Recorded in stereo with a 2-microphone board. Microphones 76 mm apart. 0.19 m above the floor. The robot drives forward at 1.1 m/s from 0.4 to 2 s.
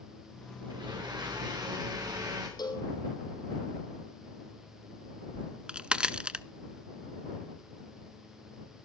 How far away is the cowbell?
About 3 m.